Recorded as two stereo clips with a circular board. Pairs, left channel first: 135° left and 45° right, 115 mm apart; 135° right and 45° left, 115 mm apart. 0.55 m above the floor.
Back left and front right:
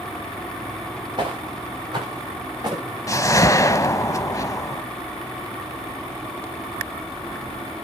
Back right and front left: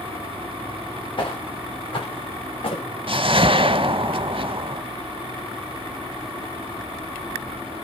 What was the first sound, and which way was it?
Footsteps, 95° right.